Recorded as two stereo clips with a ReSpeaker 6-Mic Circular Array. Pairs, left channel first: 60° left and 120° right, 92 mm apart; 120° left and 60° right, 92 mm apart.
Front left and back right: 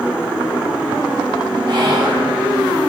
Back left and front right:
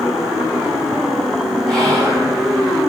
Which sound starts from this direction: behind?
Whispering, at 1.7 s.